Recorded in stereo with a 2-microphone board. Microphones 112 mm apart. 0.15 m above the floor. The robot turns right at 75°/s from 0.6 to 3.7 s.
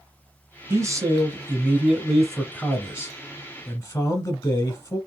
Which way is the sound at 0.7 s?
25° right (ahead or behind).